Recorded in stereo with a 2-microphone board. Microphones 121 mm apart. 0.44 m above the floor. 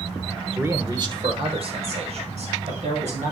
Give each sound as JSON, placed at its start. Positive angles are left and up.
{"t": 0.6, "sound": "a man speaking", "side_deg": -15, "distance_m": 1.0}